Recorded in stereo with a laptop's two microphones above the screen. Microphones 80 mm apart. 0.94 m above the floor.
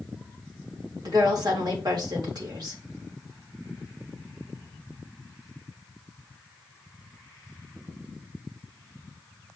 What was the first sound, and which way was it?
A woman speaking, 60° right (ahead or behind).